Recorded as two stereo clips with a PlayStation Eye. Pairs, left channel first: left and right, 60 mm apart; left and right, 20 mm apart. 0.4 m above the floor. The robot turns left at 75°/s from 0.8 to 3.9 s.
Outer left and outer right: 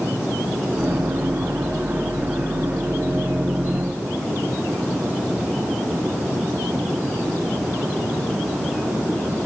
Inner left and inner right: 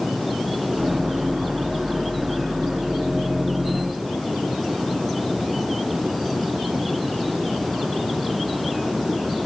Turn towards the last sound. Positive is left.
No sound to turn to.